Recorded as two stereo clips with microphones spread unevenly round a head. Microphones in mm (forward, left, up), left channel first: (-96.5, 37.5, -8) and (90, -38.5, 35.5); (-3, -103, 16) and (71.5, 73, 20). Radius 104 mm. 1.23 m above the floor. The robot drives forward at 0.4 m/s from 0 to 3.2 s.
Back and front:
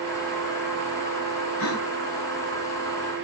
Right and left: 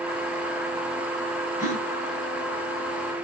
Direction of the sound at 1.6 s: 140° left.